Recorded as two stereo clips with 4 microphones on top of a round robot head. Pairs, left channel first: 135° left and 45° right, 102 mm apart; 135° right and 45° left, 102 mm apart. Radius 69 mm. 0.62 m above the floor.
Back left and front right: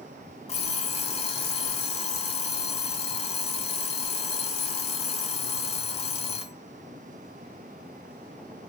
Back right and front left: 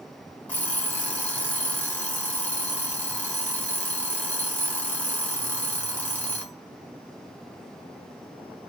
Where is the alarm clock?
150° left, 1.7 m.